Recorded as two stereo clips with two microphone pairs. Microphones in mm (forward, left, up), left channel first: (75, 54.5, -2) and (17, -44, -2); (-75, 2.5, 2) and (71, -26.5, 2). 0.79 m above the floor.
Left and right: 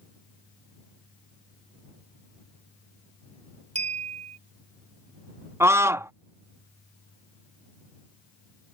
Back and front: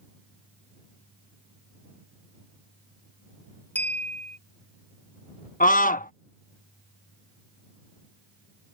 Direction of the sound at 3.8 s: 110° right.